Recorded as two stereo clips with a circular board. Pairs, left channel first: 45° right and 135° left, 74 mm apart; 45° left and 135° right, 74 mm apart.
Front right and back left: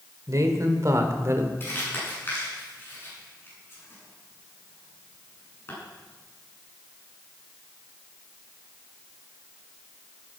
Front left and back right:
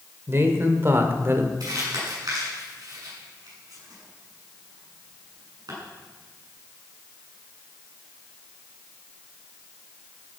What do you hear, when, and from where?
0.3 s a man speaking: 170° left, 2.5 m; by 1.5 s straight behind, 1.7 m
1.6 s crumpling: 105° right, 8 m